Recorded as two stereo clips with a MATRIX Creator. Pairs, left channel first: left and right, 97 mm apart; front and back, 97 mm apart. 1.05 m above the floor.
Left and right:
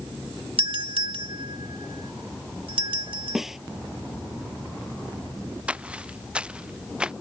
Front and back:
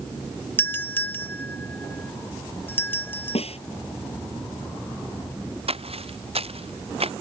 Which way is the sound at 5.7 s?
170° right.